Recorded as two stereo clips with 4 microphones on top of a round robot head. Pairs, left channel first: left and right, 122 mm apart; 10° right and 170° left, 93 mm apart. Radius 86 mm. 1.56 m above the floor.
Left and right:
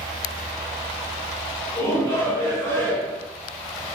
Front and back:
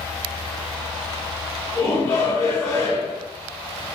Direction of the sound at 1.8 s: 45° left.